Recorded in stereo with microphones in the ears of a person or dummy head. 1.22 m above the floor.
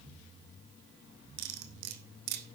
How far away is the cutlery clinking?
About 1.6 m.